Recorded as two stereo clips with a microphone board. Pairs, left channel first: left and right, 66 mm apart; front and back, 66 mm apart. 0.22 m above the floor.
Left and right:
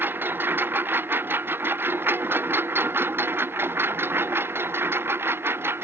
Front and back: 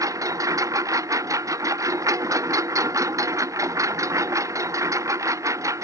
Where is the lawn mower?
150° right; by 5.8 s 145° right.